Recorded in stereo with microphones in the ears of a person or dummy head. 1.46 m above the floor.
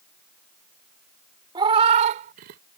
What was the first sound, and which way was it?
A cat meowing, 25° right (ahead or behind).